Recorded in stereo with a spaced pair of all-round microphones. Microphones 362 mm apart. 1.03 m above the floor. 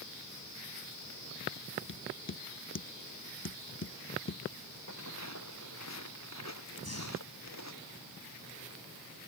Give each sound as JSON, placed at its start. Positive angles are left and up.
{"t": 1.9, "sound": "tapping", "side_deg": 35}
{"t": 4.9, "sound": "footsteps", "side_deg": 45}
{"t": 6.8, "sound": "breathing", "side_deg": 40}